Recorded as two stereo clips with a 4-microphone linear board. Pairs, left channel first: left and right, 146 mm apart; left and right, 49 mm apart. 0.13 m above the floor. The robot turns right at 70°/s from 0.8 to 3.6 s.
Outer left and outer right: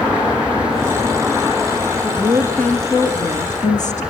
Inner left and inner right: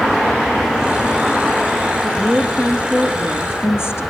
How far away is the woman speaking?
About 2 m.